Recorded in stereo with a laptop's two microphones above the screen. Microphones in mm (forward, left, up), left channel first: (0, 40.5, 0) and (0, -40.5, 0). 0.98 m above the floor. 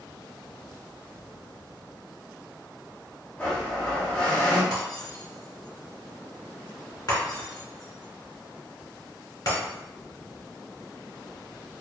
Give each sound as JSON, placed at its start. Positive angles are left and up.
{"t": 3.4, "sound": "a blender", "side_deg": 15, "distance_m": 0.6}
{"t": 4.7, "sound": "breaking glass", "side_deg": 55, "distance_m": 1.5}